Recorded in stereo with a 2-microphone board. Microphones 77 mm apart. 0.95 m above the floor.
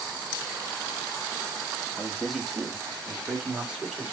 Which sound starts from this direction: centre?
A man speaking, at 2.0 s.